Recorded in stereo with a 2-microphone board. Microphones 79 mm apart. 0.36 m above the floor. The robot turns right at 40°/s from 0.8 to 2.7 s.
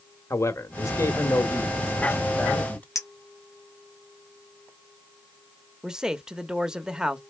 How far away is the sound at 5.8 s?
About 0.8 m.